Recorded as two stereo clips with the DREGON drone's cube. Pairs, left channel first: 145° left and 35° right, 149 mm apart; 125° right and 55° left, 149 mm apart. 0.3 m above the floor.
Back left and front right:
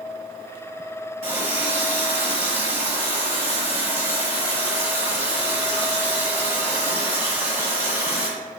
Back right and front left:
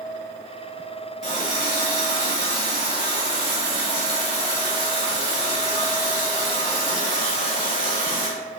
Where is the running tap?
100° right, 1.4 m.